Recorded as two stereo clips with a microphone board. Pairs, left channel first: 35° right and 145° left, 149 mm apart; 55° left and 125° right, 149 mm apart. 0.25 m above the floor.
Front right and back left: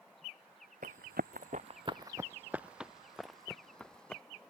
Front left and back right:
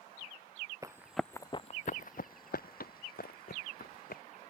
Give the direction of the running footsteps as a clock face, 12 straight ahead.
6 o'clock.